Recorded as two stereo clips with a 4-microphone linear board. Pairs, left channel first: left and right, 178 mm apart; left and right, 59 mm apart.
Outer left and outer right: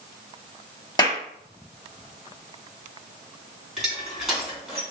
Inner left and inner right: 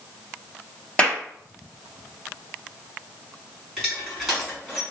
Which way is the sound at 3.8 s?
Centre (ahead or behind).